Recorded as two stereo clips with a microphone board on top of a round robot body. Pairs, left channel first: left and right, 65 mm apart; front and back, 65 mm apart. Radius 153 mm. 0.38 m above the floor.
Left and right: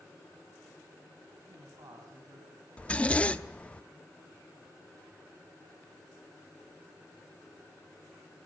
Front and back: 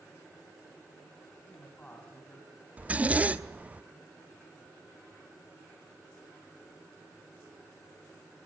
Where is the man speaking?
65° right, 4.5 m; by 3.7 s 85° right, 3.5 m.